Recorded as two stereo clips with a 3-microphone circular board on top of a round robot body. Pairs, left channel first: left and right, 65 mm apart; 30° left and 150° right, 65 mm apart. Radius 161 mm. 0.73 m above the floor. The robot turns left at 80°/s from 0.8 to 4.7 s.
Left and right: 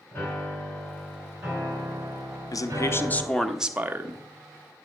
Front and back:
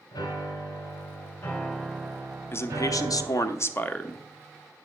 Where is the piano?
20° left, 2.5 m; by 3.3 s 175° right, 2.5 m.